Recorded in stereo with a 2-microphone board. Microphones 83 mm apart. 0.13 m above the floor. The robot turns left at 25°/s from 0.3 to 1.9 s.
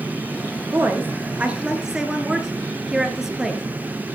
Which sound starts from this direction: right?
A woman speaking, at 0.7 s.